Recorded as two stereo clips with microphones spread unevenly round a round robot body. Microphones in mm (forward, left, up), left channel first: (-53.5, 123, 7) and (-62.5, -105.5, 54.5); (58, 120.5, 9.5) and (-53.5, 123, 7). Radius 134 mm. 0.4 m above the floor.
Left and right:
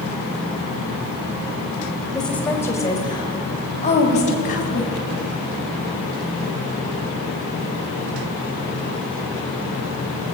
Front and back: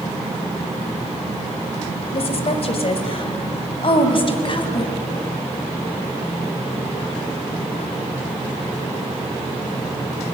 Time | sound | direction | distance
2.1 | a woman speaking | 5° left | 2.5 m